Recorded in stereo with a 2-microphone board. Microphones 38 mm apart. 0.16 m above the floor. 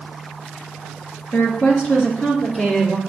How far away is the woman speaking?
About 2 m.